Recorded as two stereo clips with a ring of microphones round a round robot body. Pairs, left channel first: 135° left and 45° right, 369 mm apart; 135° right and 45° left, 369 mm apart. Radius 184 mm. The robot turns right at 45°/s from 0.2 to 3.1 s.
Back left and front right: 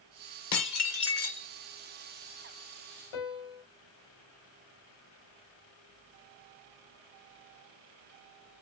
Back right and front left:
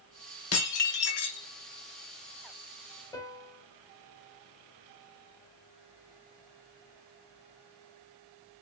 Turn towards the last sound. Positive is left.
turn(degrees=145)